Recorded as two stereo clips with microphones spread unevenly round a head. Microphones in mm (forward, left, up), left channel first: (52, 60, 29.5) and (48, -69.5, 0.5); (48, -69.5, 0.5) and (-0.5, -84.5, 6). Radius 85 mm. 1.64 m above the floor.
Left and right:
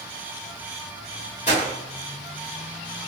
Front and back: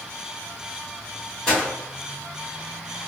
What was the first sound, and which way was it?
A gunshot, 105° left.